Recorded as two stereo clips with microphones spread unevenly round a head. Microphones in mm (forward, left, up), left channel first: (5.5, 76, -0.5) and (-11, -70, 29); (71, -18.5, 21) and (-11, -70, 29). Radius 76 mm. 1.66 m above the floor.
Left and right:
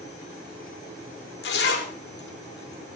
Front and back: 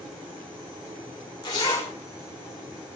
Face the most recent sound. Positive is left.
turn(degrees=95)